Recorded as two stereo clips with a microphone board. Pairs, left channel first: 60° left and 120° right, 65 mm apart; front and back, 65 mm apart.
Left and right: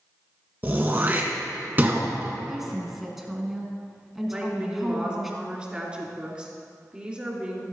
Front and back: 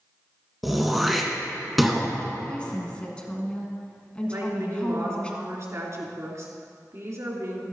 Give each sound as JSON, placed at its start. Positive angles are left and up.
{"t": 0.6, "sound": "throat clearing", "azimuth_deg": -90, "distance_m": 1.6}
{"t": 2.5, "sound": "a woman speaking", "azimuth_deg": -40, "distance_m": 1.5}
{"t": 4.3, "sound": "a woman speaking", "azimuth_deg": 170, "distance_m": 2.5}